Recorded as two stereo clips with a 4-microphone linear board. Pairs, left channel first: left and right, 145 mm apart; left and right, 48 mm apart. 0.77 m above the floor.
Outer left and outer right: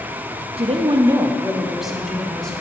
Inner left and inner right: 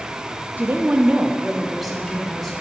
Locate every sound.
0.6 s a woman speaking: 40° right (ahead or behind), 0.6 m; by 2.5 s 5° left (ahead or behind), 2 m